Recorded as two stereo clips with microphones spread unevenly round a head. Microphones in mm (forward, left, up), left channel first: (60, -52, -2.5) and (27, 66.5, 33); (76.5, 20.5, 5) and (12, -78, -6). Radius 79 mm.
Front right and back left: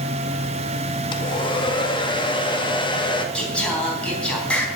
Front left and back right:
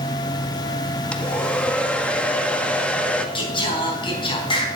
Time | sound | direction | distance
1.1 | a hair dryer | 25° right | 1.8 m
3.4 | singing | 10° left | 3.5 m